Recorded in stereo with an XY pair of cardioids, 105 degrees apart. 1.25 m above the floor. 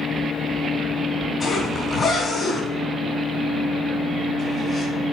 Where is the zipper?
40° left, 3 m.